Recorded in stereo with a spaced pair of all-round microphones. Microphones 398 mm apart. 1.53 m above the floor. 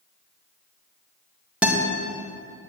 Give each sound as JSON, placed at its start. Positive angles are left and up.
{"t": 1.6, "sound": "a guitar", "side_deg": -5, "distance_m": 2.0}